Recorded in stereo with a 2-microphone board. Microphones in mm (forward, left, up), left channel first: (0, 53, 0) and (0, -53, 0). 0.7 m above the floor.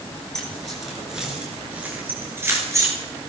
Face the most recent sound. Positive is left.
turn(degrees=-30)  # may be behind; listen again after turning